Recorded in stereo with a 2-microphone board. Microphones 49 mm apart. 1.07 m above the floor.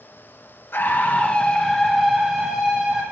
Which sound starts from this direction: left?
A scream, at 0.7 s.